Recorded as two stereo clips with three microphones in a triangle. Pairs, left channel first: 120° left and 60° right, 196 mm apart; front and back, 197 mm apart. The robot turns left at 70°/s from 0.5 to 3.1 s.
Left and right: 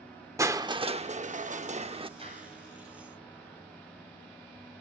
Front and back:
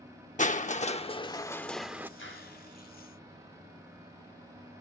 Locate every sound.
0.4 s crushing: 5° left, 0.7 m; by 2.1 s 110° right, 0.7 m
2.2 s a clap: straight ahead, 6 m; by 2.6 s 30° right, 6 m